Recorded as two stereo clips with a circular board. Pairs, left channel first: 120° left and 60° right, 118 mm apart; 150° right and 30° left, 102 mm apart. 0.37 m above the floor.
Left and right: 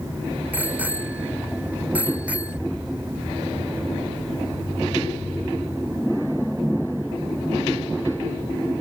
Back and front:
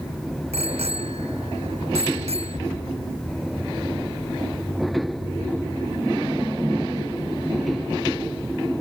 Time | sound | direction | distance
0.5 | a bicycle bell | 15° left | ?